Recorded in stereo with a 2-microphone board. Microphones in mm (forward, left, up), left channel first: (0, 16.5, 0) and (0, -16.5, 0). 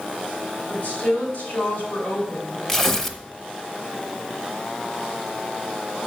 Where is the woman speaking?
75° left (ahead or behind), 3.5 m.